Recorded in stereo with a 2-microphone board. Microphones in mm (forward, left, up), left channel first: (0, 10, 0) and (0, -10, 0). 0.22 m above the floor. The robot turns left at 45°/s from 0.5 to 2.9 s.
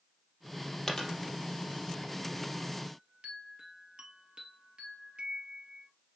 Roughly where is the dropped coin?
Left.